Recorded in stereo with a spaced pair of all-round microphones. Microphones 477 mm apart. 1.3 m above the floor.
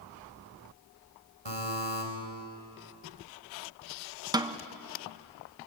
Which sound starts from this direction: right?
A buzzer, at 1.4 s.